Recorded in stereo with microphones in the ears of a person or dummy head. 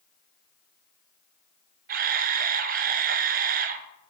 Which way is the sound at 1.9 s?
40° right (ahead or behind).